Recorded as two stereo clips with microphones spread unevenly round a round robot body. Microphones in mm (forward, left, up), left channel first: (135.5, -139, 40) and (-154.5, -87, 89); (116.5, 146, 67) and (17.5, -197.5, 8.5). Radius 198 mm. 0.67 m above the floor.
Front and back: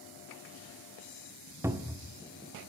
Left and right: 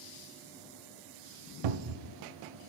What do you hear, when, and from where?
1.6 s a cupboard door: 105° right, 0.8 m